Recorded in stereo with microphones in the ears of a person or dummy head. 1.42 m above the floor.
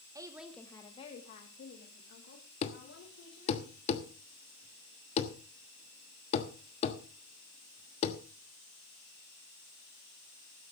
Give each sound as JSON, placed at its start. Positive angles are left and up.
{"t": 0.1, "sound": "a woman speaking", "side_deg": -25, "distance_m": 1.1}
{"t": 2.6, "sound": "a thud", "side_deg": 35, "distance_m": 1.3}